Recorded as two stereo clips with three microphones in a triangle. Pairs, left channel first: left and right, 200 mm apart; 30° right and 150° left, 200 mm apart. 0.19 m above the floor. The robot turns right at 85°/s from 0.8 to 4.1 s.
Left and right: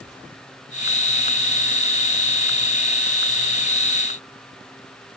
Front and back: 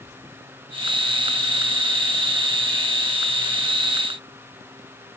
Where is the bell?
I don't hear a bell.